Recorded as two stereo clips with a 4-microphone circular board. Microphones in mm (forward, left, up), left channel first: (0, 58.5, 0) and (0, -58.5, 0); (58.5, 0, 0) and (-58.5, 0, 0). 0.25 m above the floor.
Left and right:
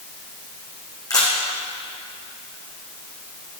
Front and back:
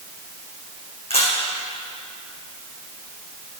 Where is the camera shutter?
35° left, 4 m.